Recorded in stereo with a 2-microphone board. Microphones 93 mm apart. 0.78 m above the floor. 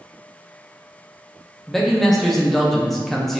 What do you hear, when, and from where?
1.7 s a man speaking: 5° left (ahead or behind), 0.7 m